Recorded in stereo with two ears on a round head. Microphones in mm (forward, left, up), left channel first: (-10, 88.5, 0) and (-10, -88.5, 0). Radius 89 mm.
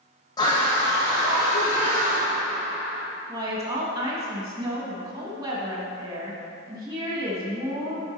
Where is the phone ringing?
No phone ringing in this recording.